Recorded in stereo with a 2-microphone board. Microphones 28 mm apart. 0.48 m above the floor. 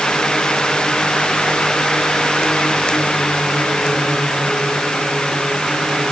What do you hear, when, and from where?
Only background noise.